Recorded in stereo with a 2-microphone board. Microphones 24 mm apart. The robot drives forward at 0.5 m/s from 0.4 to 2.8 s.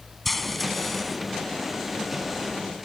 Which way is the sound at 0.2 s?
5° left (ahead or behind).